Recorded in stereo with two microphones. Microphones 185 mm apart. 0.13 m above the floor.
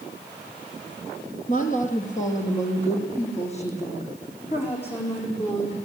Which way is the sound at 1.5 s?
45° left (ahead or behind).